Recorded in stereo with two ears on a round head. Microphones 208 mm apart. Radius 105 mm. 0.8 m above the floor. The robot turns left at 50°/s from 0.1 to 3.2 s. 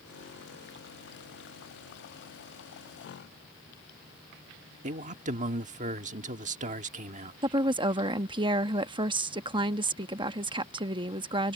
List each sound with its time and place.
4.8 s a man speaking: 35° right (ahead or behind)
7.4 s a woman speaking: 20° right (ahead or behind)